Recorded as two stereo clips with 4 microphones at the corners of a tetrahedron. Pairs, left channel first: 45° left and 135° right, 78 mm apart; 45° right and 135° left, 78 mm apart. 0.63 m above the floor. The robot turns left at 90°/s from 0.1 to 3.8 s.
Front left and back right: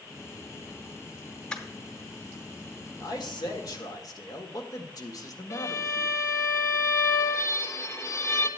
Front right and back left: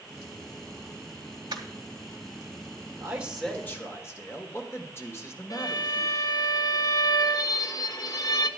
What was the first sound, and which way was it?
Crushing, 125° left.